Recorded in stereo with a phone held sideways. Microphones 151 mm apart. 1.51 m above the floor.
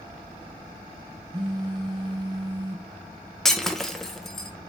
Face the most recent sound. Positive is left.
turn(degrees=0)  # may be behind; listen again after turning